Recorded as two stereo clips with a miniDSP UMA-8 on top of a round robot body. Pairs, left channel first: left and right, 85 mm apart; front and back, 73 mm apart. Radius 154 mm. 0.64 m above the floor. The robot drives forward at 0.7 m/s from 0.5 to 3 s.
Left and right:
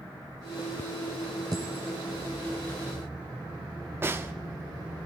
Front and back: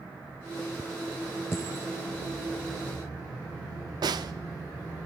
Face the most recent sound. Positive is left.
turn(degrees=-155)